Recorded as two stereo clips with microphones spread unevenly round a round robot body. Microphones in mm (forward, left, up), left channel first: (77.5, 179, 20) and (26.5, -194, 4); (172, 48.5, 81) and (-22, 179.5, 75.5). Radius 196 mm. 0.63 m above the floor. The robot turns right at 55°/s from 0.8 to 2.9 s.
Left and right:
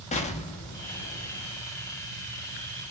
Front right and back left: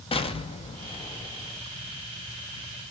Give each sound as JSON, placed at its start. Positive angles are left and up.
{"t": 0.1, "sound": "an explosion", "azimuth_deg": 20, "distance_m": 0.6}